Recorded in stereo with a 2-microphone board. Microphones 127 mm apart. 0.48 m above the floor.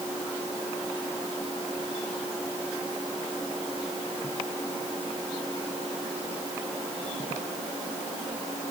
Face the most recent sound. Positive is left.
No sound to turn to.